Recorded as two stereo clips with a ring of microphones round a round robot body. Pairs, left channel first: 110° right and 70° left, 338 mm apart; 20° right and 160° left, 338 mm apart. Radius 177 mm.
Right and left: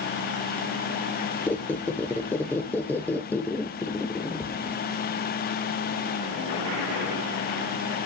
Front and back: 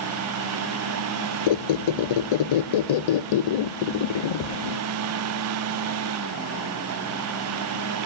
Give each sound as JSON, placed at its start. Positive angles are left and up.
{"t": 1.5, "sound": "a squeak", "azimuth_deg": -30, "distance_m": 0.5}